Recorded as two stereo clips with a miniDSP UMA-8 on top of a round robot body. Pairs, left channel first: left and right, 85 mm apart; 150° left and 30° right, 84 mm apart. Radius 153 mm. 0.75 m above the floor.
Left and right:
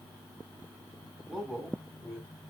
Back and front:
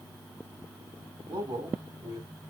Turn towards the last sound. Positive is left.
turn(degrees=10)